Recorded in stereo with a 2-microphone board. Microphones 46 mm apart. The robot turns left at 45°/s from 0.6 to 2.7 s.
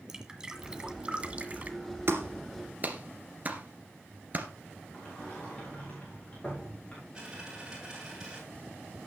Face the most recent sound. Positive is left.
turn(degrees=-15)  # may be behind; listen again after turning